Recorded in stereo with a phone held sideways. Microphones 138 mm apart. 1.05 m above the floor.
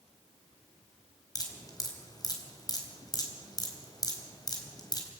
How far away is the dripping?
About 4 m.